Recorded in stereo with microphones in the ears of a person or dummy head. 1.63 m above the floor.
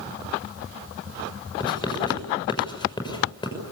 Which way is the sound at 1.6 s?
35° left (ahead or behind).